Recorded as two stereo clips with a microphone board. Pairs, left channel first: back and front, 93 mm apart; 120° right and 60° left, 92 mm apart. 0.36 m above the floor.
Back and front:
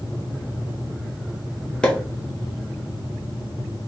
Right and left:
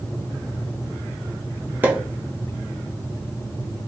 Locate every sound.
1.8 s a pop: 110° left, 1.0 m